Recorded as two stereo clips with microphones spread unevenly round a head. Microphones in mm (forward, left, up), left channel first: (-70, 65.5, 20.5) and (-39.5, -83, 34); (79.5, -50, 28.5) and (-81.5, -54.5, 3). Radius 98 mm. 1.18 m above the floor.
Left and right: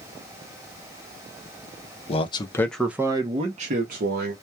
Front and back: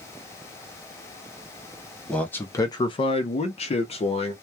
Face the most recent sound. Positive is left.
turn(degrees=-55)